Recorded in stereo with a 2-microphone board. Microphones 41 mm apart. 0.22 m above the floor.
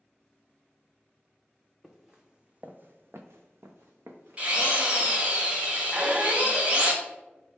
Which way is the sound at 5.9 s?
30° right (ahead or behind).